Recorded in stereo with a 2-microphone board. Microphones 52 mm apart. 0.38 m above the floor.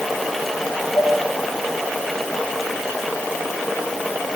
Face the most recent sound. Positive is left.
turn(degrees=60)  # may be behind; listen again after turning